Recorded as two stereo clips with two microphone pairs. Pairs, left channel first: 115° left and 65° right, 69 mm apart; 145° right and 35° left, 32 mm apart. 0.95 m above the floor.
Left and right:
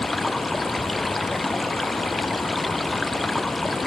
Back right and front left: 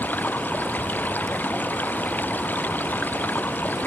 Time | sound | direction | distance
0.0 | running water | 155° right | ?